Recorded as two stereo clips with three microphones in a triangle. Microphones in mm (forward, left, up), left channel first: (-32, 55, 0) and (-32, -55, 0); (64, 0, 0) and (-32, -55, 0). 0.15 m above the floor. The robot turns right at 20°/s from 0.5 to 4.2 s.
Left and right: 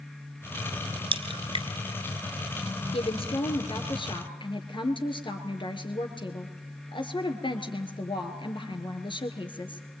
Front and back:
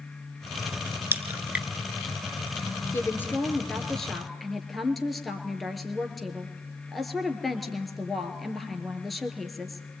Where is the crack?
85° right, 1.9 m; by 1.7 s 70° right, 1.9 m.